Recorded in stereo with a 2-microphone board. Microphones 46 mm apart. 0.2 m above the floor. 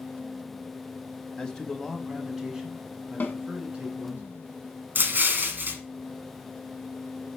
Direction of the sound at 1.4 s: 20° left (ahead or behind).